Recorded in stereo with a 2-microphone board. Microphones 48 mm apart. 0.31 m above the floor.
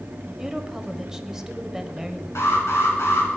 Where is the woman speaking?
10° right (ahead or behind), 1.1 m.